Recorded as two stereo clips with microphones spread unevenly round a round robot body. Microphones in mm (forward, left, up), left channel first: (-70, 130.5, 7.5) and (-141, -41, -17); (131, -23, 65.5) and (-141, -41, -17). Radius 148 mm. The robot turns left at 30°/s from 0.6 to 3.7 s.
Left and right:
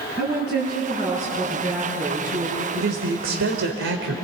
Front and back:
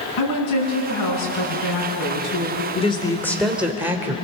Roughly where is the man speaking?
Right.